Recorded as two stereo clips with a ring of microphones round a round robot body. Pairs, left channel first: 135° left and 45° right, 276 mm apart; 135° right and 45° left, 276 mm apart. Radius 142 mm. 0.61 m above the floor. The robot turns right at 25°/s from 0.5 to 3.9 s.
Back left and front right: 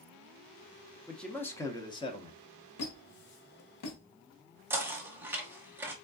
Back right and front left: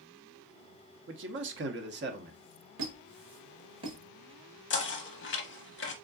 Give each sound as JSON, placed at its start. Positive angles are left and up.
{"t": 1.1, "sound": "a man speaking", "azimuth_deg": 45, "distance_m": 0.8}
{"t": 2.8, "sound": "a squeak", "azimuth_deg": 90, "distance_m": 1.2}
{"t": 4.7, "sound": "knocking", "azimuth_deg": -125, "distance_m": 0.9}